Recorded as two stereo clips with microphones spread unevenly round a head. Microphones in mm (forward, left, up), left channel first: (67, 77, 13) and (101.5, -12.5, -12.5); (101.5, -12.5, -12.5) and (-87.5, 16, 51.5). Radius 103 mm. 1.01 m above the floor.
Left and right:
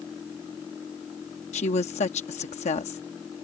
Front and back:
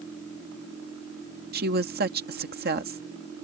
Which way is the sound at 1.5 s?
125° left.